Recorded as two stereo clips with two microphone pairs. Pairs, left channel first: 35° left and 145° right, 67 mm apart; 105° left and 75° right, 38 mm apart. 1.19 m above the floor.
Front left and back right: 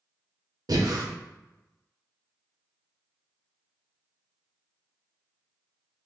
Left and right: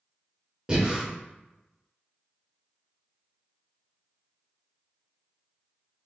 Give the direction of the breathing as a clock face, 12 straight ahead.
5 o'clock.